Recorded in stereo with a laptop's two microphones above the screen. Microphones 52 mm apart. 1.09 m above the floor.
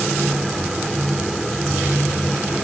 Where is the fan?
Centre (ahead or behind), 1.5 m.